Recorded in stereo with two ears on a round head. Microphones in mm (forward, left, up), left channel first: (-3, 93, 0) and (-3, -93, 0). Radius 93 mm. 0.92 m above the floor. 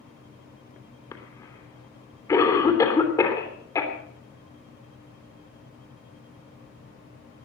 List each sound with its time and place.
1.1 s a cough: 15° left (ahead or behind), 3 m